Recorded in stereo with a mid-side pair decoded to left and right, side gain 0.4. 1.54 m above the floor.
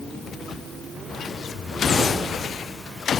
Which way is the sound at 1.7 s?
55° left.